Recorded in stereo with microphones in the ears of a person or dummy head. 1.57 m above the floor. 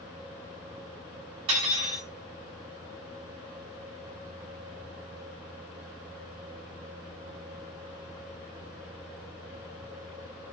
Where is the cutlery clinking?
20° right (ahead or behind), 0.7 m.